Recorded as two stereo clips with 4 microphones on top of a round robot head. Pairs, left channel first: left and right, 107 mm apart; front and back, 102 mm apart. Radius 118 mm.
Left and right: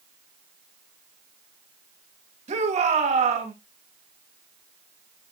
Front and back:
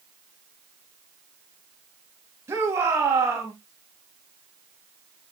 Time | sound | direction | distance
2.5 | a shout | 110° right | 2.5 m